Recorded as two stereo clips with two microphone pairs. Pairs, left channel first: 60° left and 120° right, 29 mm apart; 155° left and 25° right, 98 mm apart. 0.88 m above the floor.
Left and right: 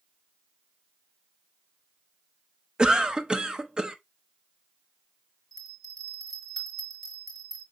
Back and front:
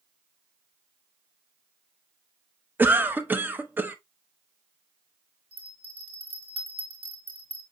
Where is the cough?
75° right, 0.6 m.